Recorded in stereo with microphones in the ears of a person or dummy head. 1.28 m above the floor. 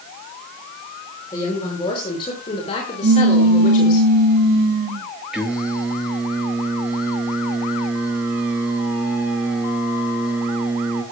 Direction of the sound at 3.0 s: 45° right (ahead or behind).